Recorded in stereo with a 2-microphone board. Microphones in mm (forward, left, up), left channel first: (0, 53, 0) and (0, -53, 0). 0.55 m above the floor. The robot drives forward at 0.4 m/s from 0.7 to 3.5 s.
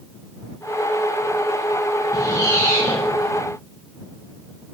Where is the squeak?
30° left (ahead or behind), 1.1 m; by 3.1 s 25° left (ahead or behind), 1.4 m.